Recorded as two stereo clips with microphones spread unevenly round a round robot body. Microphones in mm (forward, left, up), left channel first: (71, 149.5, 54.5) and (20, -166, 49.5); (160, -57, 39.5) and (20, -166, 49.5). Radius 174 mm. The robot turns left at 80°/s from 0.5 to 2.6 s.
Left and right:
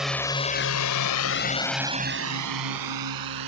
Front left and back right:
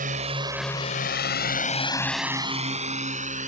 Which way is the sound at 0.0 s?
170° left.